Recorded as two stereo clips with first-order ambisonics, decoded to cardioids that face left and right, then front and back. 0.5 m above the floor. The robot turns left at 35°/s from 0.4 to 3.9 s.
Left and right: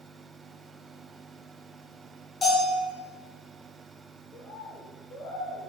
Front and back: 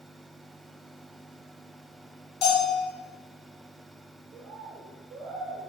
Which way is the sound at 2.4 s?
30° left.